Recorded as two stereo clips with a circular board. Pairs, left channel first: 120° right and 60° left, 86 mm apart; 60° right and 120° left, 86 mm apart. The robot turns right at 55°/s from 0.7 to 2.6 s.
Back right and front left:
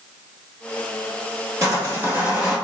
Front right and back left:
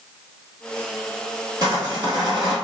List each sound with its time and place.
1.6 s sawing: 100° left, 1.7 m; by 2.5 s 150° left, 1.7 m